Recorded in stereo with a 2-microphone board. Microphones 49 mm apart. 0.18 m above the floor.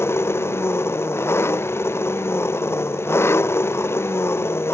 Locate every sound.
0.0 s an engine running: 55° left (ahead or behind)